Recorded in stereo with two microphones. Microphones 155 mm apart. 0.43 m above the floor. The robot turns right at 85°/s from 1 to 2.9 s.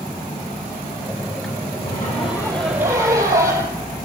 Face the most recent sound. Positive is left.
turn(degrees=-160)